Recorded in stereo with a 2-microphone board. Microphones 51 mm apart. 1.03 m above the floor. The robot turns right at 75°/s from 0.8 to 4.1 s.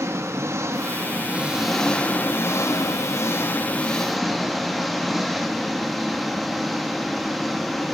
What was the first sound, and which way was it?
An engine running, 70° right.